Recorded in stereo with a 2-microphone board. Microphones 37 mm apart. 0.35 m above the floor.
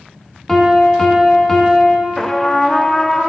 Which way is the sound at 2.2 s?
15° left (ahead or behind).